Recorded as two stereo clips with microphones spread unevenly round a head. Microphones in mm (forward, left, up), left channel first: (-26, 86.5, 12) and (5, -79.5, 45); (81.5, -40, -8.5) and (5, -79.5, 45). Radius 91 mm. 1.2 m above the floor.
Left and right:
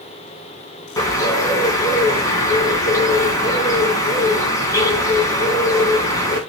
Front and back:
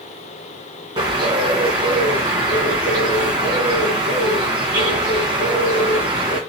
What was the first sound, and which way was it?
A bird, 175° left.